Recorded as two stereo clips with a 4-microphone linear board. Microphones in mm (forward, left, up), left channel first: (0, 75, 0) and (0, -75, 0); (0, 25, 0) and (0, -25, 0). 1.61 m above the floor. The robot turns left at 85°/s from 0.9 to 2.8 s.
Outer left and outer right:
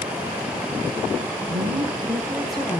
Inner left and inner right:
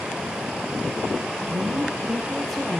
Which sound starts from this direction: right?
A woman speaking, at 1.5 s.